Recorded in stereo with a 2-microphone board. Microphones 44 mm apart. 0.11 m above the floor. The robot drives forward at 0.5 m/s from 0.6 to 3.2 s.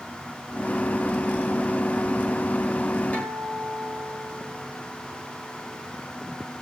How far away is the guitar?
About 9 m.